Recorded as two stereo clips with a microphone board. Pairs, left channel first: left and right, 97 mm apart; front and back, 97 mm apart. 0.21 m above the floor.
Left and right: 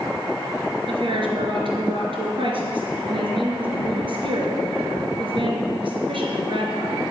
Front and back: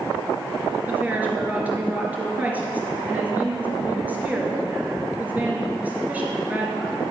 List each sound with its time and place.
0.9 s a woman speaking: 105° right, 3 m